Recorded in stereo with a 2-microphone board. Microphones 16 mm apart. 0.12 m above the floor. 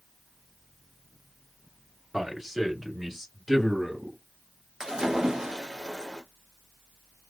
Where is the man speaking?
25° right (ahead or behind), 1.8 m; by 4.2 s 5° left (ahead or behind), 1.9 m.